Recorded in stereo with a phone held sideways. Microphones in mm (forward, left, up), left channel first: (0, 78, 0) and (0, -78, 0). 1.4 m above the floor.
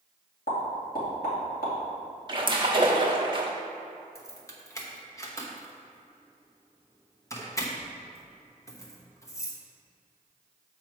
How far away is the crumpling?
No crumpling in this recording.